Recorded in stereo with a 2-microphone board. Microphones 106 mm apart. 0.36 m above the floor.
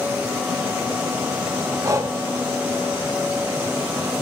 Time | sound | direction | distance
1.8 | breathing | 30° right (ahead or behind) | 0.9 m